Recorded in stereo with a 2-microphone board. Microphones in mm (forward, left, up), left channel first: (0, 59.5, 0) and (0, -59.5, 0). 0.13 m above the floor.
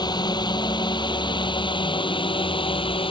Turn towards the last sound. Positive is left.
turn(degrees=50)  # may be behind; listen again after turning